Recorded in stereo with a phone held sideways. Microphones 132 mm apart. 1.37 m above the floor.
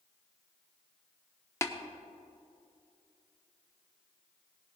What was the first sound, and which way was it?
Tapping, 20° left (ahead or behind).